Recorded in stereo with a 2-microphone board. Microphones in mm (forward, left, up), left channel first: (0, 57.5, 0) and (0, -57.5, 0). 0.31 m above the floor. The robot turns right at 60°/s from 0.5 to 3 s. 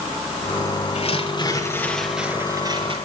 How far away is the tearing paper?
About 5.5 m.